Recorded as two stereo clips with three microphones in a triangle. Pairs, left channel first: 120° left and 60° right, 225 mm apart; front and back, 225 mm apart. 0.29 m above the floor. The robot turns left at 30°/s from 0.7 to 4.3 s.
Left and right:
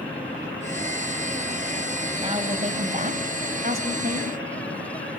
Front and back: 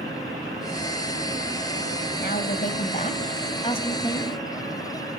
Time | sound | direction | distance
2.2 | a woman speaking | 5° right | 2.0 m